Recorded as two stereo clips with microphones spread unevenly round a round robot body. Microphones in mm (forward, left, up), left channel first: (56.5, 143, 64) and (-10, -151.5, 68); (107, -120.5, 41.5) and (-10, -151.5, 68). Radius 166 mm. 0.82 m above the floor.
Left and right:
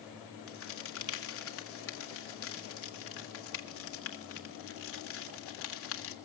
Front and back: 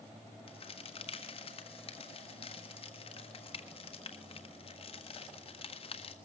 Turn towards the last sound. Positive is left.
turn(degrees=40)